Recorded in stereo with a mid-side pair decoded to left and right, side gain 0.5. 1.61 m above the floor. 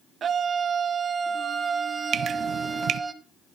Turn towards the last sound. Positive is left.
turn(degrees=-65)